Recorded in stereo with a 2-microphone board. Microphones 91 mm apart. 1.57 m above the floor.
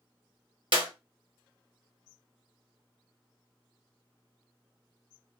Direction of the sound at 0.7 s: 70° right (ahead or behind).